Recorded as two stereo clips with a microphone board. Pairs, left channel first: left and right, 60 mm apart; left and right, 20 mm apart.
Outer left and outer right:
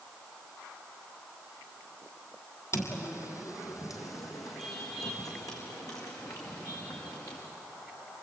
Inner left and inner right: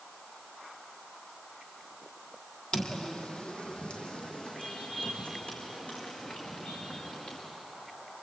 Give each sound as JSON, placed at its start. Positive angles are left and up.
{"t": 2.7, "sound": "footsteps", "side_deg": 50, "distance_m": 2.5}